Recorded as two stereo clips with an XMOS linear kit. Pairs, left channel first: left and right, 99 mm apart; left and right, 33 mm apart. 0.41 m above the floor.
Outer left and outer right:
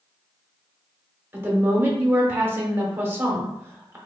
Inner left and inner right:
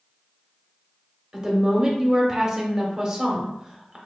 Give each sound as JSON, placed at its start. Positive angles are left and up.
{"t": 1.3, "sound": "a woman speaking", "side_deg": -25, "distance_m": 1.0}